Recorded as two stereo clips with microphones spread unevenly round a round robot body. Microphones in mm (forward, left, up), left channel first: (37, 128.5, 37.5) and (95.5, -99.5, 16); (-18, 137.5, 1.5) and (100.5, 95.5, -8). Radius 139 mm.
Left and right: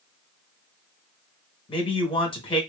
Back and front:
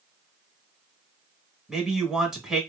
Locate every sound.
1.7 s a man speaking: 55° left, 1.1 m